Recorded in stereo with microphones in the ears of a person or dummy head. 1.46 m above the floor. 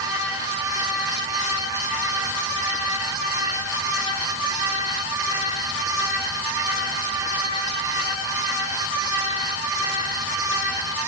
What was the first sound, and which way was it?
Only background noise.